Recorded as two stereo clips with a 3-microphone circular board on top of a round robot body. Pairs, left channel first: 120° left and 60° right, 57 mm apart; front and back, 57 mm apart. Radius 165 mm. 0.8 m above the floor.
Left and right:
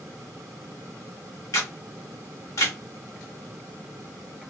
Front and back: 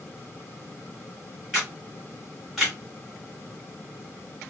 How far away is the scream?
I don't hear a scream.